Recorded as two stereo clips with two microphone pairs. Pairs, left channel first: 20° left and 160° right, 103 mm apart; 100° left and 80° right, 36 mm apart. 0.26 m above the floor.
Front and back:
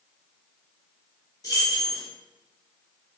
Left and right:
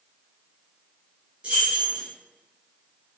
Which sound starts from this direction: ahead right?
Keys jangling, at 1.4 s.